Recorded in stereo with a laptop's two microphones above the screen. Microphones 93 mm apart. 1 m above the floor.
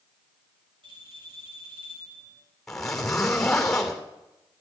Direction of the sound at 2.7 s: 5° left (ahead or behind).